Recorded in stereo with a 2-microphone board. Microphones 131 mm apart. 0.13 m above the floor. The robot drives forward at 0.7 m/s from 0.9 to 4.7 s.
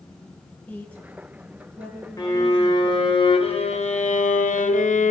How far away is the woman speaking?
About 1.5 m.